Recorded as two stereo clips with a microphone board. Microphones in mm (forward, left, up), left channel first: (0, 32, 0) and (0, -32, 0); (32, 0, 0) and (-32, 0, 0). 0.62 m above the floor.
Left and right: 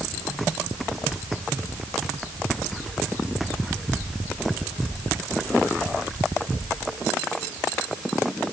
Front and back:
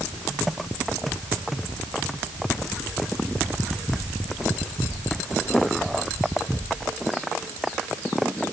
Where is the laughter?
I don't hear laughter.